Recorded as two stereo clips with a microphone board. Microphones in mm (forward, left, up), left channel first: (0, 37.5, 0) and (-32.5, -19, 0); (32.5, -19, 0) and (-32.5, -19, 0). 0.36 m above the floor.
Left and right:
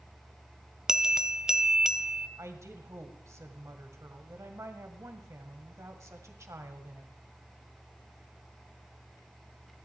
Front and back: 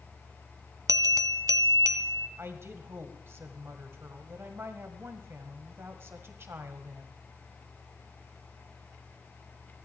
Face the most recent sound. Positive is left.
turn(degrees=-140)